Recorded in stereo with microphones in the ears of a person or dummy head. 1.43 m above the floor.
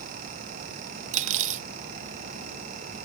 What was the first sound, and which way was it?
Cutlery clinking, 45° right (ahead or behind).